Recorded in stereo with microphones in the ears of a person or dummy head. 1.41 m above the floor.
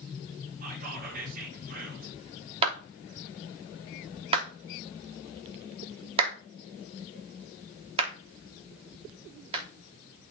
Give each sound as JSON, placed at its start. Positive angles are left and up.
{"t": 0.6, "sound": "whispering", "side_deg": -55, "distance_m": 5.0}
{"t": 2.6, "sound": "a clap", "side_deg": -30, "distance_m": 3.0}